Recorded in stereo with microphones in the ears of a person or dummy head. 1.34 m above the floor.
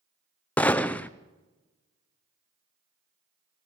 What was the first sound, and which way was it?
A gunshot, 5° left (ahead or behind).